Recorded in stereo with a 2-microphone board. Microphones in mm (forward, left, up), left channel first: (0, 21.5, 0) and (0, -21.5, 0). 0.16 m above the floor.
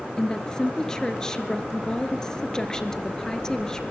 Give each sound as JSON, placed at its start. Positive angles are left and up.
{"t": 0.2, "sound": "a woman speaking", "side_deg": 15, "distance_m": 2.5}